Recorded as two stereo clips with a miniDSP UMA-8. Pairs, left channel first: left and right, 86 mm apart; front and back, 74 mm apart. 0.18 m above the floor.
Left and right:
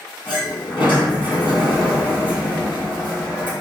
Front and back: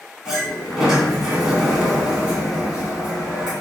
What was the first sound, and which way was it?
A sliding door, 105° left.